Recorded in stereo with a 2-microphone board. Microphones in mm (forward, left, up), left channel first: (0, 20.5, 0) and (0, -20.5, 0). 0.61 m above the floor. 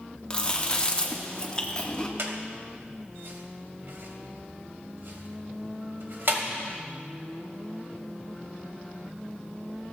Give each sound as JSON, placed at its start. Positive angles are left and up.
{"t": 0.3, "sound": "chewing", "side_deg": 25, "distance_m": 1.2}
{"t": 2.2, "sound": "a squeak", "side_deg": -65, "distance_m": 1.4}